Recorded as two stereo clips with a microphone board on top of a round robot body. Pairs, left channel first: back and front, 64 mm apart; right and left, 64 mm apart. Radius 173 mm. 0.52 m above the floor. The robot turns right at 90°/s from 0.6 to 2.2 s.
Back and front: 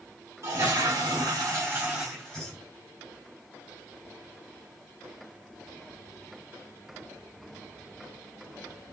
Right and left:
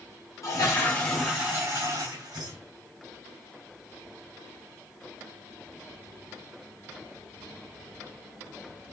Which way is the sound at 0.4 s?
45° right.